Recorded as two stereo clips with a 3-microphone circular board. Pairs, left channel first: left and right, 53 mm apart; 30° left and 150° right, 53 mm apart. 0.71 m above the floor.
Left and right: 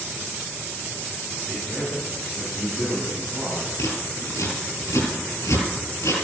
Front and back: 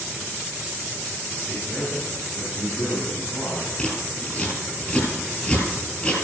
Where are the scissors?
95° left, 6 m.